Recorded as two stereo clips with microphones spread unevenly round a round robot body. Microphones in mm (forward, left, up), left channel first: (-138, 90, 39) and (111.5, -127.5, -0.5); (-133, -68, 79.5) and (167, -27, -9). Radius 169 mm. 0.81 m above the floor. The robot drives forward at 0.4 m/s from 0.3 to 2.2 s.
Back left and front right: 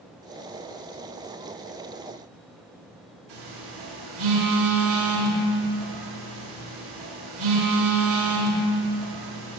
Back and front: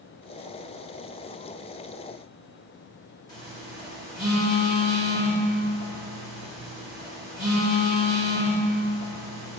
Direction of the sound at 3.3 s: 90° right.